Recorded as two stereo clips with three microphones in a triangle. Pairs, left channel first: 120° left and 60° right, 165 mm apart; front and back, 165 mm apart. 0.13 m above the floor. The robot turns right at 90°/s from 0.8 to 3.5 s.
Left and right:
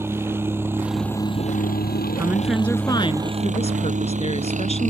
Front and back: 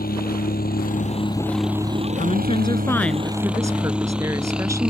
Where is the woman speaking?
Straight ahead; by 4.9 s 120° left.